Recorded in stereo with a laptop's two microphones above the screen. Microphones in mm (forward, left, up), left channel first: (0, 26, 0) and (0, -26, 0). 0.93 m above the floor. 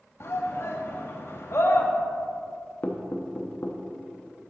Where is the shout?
55° left (ahead or behind), 1.1 m.